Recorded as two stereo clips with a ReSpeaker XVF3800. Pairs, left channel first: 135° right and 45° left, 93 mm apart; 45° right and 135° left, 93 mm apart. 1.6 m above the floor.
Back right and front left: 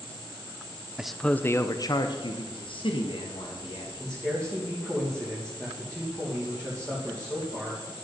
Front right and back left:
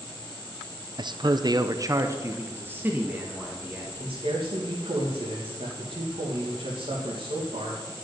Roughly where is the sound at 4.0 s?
Behind left.